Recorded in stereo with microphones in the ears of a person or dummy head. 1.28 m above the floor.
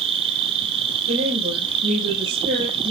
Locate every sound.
0.0 s an insect: 35° right (ahead or behind), 1.8 m
1.1 s a woman speaking: 60° right (ahead or behind), 5 m